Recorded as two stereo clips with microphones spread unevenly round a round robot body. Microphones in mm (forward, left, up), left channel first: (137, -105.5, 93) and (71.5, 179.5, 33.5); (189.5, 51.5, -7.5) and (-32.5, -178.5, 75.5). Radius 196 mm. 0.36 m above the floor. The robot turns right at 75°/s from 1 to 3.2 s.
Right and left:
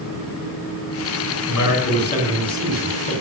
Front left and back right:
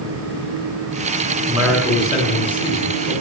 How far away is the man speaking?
About 4 m.